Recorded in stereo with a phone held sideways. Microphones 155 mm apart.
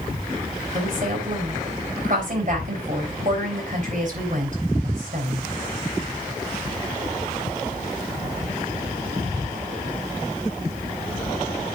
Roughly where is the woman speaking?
Right.